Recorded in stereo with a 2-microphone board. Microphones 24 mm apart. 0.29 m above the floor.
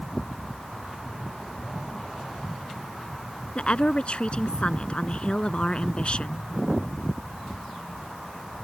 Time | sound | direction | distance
3.6 | a woman speaking | 50° left (ahead or behind) | ?